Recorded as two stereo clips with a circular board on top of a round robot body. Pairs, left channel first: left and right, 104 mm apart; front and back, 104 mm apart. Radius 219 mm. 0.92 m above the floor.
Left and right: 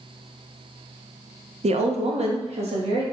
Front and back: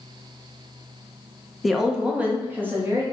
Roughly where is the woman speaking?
Right.